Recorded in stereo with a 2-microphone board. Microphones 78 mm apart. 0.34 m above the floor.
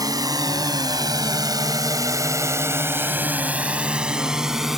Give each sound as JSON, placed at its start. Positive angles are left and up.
{"t": 0.0, "sound": "a drone", "side_deg": -45}